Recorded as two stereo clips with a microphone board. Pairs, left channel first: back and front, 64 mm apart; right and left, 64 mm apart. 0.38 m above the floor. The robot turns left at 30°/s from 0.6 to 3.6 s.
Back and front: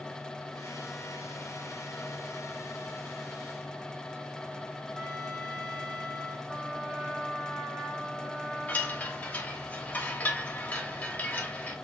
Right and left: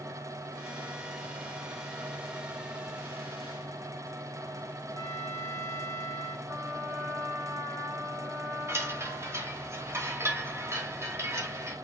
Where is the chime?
120° left, 1.0 m.